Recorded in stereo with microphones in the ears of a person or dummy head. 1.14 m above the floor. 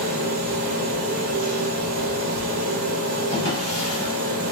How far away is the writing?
I don't hear writing.